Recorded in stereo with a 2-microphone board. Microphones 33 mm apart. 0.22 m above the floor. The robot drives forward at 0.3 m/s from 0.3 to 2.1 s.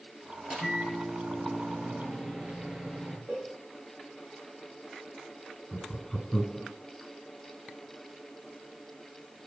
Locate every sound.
0.4 s a microwave: 20° right (ahead or behind), 3.5 m
3.3 s a cowbell: 55° right (ahead or behind), 8.5 m
5.7 s laughter: 10° left (ahead or behind), 2 m